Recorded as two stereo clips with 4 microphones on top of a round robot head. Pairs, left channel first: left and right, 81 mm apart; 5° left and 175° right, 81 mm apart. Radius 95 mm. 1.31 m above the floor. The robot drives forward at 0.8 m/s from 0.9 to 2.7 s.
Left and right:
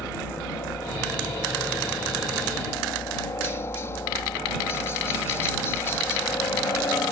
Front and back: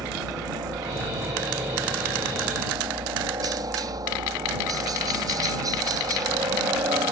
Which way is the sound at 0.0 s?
150° left.